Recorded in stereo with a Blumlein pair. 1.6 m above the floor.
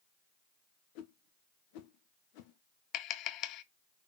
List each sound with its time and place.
0.9 s a whoosh: 45° left, 1.1 m
2.9 s tapping: 35° left, 0.6 m